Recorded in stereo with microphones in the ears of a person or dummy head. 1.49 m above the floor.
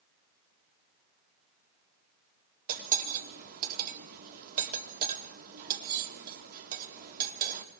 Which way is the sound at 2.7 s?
50° right (ahead or behind).